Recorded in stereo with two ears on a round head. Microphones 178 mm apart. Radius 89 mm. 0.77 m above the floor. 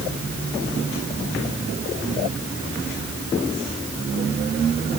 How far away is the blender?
No blender in this recording.